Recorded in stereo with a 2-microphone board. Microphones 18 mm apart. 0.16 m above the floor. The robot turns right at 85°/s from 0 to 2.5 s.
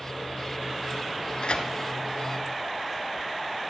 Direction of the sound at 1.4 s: 60° left (ahead or behind).